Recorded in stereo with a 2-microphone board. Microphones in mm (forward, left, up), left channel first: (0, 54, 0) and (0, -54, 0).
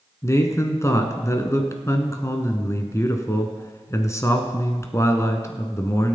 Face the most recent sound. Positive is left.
turn(degrees=30)  # may be behind; listen again after turning